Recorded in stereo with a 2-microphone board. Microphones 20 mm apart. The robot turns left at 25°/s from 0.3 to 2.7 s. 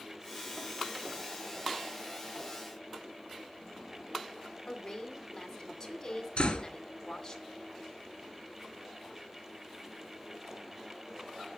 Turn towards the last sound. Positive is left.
turn(degrees=60)  # may be behind; listen again after turning